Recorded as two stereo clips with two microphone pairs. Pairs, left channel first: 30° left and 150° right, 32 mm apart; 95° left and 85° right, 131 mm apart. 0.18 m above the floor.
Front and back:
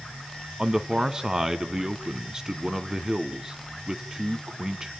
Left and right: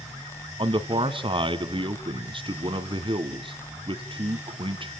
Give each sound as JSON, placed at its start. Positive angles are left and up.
{"t": 0.6, "sound": "a man speaking", "azimuth_deg": -90, "distance_m": 1.7}